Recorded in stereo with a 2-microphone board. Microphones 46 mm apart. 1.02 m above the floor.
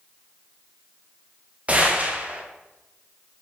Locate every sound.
1.7 s a gunshot: 30° right (ahead or behind), 0.6 m